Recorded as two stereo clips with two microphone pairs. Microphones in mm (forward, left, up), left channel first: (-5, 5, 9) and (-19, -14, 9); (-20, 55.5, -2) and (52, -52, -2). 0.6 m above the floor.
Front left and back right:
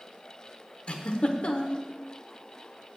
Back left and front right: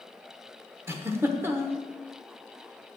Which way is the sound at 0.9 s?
15° left.